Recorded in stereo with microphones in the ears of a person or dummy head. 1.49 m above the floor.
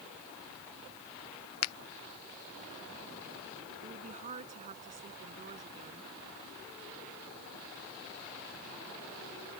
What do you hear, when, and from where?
1.6 s a finger snap: 85° left
3.8 s a woman speaking: 35° right (ahead or behind)